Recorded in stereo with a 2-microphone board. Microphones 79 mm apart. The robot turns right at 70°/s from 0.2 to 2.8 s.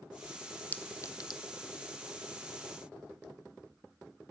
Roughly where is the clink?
Centre.